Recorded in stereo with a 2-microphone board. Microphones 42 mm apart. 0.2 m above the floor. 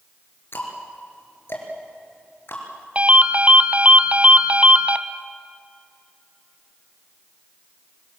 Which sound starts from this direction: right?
A ringtone, at 3.0 s.